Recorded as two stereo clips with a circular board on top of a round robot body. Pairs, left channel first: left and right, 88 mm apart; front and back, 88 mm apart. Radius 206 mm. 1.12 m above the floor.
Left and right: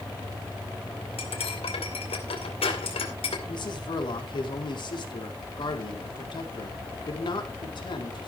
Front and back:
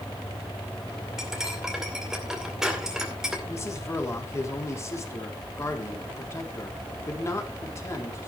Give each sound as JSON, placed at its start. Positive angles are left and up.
{"t": 1.2, "sound": "cutlery clinking", "azimuth_deg": 95, "distance_m": 2.0}
{"t": 3.5, "sound": "a man speaking", "azimuth_deg": 60, "distance_m": 3.5}